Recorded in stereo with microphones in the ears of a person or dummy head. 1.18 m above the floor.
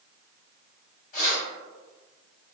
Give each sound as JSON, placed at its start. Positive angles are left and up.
{"t": 1.1, "sound": "keys jangling", "side_deg": 45, "distance_m": 1.2}